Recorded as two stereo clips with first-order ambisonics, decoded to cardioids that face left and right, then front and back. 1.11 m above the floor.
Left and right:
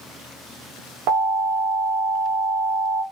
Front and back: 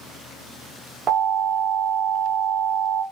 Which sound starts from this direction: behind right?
An alarm, at 1.1 s.